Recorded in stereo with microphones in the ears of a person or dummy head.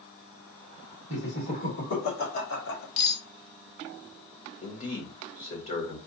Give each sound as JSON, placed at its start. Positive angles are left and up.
{"t": 1.1, "sound": "laughter", "side_deg": 75, "distance_m": 3.0}
{"t": 3.0, "sound": "cutlery clinking", "side_deg": 55, "distance_m": 1.1}
{"t": 4.6, "sound": "a man speaking", "side_deg": 40, "distance_m": 1.7}